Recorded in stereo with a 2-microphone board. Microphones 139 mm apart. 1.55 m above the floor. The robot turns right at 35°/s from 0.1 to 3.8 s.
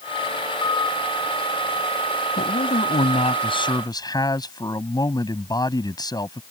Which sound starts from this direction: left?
A man speaking, at 2.4 s.